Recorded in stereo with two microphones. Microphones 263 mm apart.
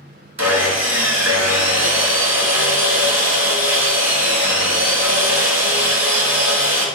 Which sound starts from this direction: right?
Sawing, at 0.4 s.